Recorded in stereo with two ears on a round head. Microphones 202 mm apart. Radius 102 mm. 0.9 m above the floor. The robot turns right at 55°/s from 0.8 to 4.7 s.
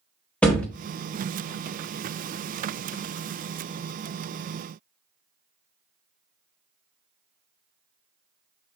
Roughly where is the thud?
Centre.